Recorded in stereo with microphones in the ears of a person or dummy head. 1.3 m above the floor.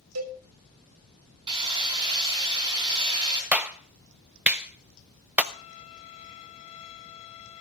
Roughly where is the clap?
Centre.